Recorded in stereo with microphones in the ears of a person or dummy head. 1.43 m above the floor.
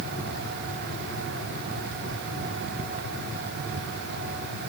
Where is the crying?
No crying in this recording.